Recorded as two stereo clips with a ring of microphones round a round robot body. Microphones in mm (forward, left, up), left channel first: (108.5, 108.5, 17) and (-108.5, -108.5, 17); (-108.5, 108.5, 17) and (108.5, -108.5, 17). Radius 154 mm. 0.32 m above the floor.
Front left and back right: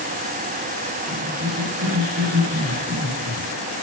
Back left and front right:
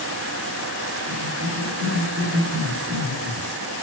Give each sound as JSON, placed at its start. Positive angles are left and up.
{"t": 1.1, "sound": "a cough", "azimuth_deg": -95, "distance_m": 5.0}